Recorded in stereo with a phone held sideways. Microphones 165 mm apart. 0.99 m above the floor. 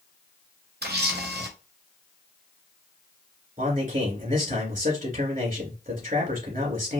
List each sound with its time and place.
0.8 s a camera shutter: 85° right, 0.8 m
3.6 s a man speaking: 55° right (ahead or behind), 2 m